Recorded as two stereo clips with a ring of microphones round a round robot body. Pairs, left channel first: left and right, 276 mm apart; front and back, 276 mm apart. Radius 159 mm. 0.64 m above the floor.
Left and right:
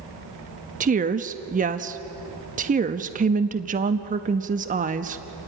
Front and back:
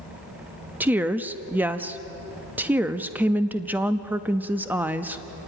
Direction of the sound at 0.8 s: 105° right.